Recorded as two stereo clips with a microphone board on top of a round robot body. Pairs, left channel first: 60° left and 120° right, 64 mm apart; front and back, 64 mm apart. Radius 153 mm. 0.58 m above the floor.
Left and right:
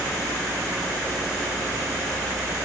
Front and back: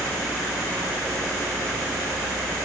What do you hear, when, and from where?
Only background noise.